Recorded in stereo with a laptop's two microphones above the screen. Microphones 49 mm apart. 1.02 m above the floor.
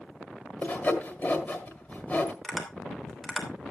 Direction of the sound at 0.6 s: 35° left (ahead or behind).